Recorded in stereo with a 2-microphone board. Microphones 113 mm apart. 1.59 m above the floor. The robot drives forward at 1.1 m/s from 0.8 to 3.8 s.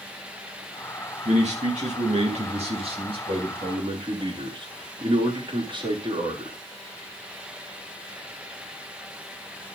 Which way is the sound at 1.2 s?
85° right.